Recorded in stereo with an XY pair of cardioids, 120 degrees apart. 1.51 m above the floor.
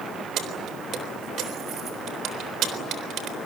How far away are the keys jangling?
About 3.5 m.